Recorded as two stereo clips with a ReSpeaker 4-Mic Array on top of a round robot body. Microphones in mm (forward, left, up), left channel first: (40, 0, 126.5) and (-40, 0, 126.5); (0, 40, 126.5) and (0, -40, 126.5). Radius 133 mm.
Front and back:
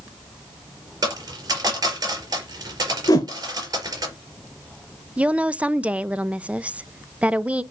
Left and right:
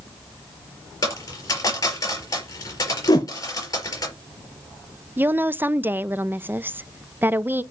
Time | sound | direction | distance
1.0 | a dropped coin | 135° left | 4.5 m
3.1 | a whoosh | 45° left | 0.6 m
5.2 | a woman speaking | 125° right | 0.8 m